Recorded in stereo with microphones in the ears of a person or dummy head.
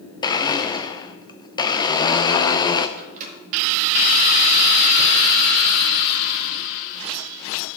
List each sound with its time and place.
0.2 s a blender: 25° left (ahead or behind), 0.6 m
3.0 s a microwave: 45° right (ahead or behind), 1.7 m